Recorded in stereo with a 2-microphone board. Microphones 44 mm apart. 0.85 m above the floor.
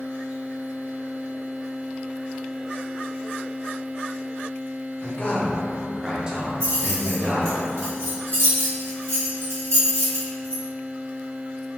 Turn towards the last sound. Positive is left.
turn(degrees=-75)  # may be behind; listen again after turning